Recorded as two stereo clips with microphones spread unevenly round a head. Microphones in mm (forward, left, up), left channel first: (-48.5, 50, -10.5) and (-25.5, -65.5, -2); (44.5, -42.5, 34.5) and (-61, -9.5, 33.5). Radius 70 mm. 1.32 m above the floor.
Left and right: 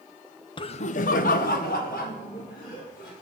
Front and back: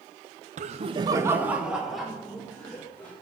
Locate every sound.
0.6 s laughter: 145° left, 0.6 m; by 3.1 s 65° left, 2.5 m